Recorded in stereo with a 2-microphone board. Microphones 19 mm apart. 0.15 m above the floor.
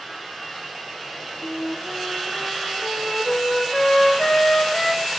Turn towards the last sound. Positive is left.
turn(degrees=40)  # may be behind; listen again after turning